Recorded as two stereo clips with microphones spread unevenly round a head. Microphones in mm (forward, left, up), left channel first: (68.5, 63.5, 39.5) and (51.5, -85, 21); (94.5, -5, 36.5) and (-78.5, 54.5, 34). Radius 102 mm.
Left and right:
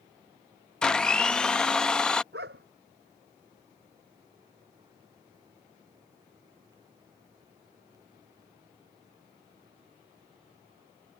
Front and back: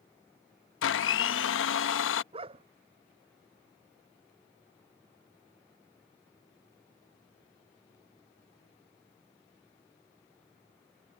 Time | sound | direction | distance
0.8 | a blender | straight ahead | ?
2.3 | a dog barking | 135° right | ?